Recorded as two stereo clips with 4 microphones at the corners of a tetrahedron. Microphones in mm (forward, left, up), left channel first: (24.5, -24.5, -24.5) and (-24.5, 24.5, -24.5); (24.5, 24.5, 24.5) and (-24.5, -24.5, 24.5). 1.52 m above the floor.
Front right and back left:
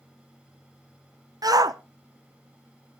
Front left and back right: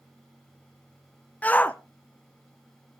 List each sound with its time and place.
1.4 s a shout: 110° left, 0.8 m